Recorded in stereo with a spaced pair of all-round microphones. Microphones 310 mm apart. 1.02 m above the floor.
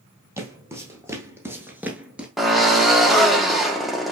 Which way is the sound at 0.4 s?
10° right (ahead or behind).